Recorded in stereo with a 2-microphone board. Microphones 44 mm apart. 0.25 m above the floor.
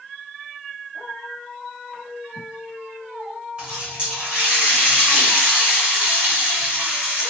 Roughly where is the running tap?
Right.